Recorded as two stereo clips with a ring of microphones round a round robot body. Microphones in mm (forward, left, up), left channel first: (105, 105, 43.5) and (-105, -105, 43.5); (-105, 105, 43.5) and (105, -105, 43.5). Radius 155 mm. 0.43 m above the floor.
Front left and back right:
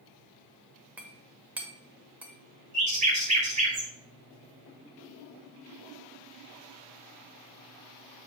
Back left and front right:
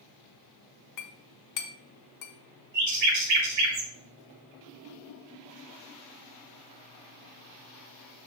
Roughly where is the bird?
Right.